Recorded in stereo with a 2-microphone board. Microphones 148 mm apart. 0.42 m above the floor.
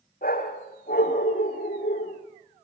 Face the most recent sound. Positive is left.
turn(degrees=80)